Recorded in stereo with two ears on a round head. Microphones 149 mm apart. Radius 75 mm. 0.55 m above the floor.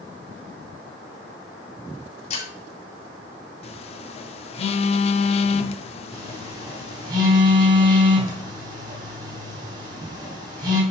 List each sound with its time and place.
2.3 s breaking glass: 45° left (ahead or behind), 4 m
3.6 s a phone buzzing: 35° left (ahead or behind), 0.7 m
6.1 s a phone buzzing: 25° right (ahead or behind), 3.5 m